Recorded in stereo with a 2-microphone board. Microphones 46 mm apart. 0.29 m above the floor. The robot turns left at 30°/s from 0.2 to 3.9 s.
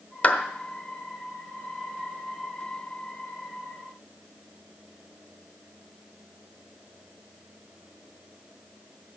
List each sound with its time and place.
0.2 s a clap: 30° left (ahead or behind), 1.3 m; by 0.4 s 25° left (ahead or behind), 1.3 m